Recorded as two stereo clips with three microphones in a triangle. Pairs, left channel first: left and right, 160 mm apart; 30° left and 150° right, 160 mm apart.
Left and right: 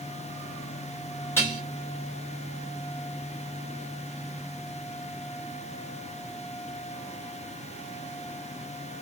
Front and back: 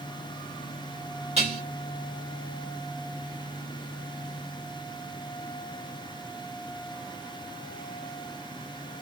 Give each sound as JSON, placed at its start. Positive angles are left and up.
{"t": 1.4, "sound": "dishes clattering", "azimuth_deg": 165, "distance_m": 1.8}